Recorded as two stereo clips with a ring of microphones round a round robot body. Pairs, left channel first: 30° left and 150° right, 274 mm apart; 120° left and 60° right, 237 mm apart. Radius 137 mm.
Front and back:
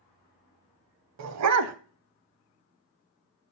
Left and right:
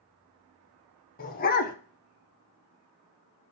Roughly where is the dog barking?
Behind.